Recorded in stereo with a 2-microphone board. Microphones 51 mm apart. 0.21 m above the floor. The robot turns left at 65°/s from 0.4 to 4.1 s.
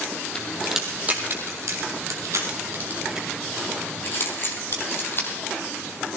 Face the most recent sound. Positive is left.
turn(degrees=45)  # may be behind; listen again after turning